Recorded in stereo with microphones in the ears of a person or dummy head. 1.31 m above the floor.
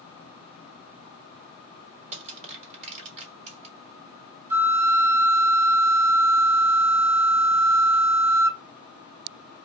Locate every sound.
2.1 s crushing: 35° right (ahead or behind), 2 m
4.5 s a flute: 15° right (ahead or behind), 0.8 m